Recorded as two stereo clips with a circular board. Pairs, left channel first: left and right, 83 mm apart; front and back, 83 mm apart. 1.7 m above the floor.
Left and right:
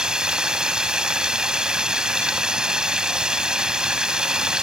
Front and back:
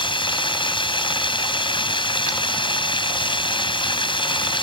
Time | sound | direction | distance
0.0 | running water | 10° right | ?